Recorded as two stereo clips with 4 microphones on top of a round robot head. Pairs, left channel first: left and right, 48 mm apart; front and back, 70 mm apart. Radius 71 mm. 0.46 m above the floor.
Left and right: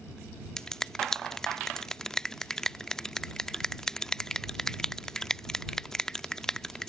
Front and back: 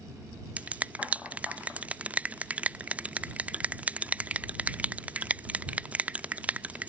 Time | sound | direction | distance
0.6 | a finger snap | 145° left | ?